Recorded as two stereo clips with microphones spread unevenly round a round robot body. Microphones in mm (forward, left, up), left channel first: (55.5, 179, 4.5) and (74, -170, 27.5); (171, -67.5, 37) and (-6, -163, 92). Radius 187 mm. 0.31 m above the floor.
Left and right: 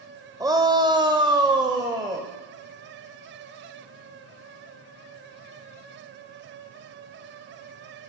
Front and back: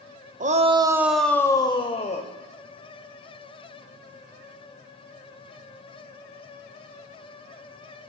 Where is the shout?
160° right, 0.9 m; by 2.3 s 5° right, 1.4 m.